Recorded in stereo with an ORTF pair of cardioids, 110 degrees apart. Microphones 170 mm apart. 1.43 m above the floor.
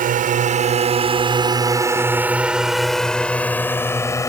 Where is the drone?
55° right; by 4.3 s 20° left.